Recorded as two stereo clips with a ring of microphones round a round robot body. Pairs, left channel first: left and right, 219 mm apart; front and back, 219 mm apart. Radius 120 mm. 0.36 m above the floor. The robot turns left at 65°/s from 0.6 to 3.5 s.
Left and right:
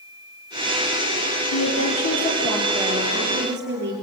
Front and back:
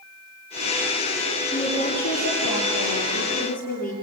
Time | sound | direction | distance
1.5 | a woman speaking | 80° left | 7.5 m